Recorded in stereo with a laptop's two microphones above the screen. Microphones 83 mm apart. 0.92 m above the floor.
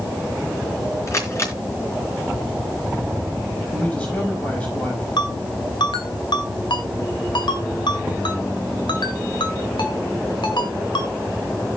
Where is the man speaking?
15° left (ahead or behind), 5.5 m.